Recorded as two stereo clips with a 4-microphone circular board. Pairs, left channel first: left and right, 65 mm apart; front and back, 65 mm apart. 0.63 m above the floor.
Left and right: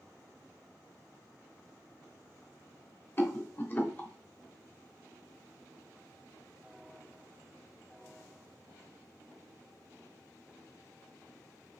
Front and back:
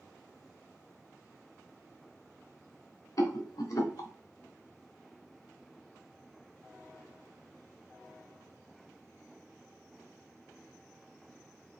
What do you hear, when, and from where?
3.2 s a rattle: 35° left, 0.8 m